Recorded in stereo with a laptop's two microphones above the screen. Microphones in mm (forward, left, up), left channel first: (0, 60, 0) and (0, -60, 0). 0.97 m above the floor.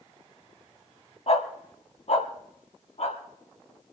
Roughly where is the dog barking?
Left.